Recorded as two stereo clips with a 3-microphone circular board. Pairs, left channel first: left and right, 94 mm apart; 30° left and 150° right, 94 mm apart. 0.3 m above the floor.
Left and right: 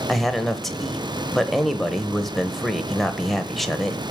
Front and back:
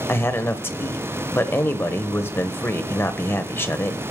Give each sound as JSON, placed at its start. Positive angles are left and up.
{"t": 0.1, "sound": "a man speaking", "azimuth_deg": 5, "distance_m": 1.0}